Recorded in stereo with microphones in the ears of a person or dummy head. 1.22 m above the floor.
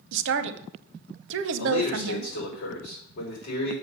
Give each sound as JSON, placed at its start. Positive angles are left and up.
{"t": 0.1, "sound": "a woman speaking", "side_deg": -65, "distance_m": 0.8}
{"t": 1.6, "sound": "a man speaking", "side_deg": 60, "distance_m": 4.0}